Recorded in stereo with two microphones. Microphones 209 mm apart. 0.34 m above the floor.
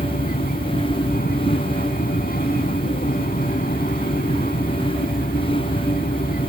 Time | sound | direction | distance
0.0 | an aircraft | 45° left (ahead or behind) | ?